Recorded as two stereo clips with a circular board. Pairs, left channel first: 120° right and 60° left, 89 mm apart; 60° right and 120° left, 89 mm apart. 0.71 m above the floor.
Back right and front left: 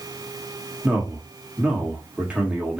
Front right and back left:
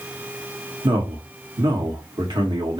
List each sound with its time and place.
0.8 s a man speaking: 135° left, 1.6 m